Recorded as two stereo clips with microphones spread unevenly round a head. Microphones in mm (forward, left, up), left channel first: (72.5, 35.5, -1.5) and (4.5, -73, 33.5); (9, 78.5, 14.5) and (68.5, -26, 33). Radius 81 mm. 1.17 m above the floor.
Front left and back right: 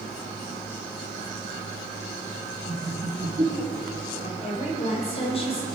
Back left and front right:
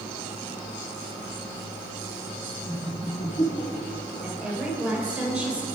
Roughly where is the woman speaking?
Ahead.